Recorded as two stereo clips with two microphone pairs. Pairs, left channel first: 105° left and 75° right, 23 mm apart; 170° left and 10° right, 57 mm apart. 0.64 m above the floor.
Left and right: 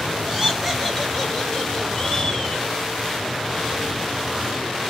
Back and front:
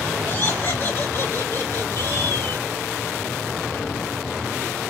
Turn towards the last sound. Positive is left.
turn(degrees=155)